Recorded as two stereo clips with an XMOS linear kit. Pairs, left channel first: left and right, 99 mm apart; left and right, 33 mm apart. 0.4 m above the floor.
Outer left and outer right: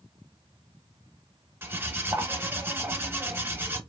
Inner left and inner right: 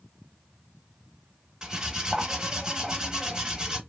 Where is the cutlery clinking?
25° right (ahead or behind), 0.6 m.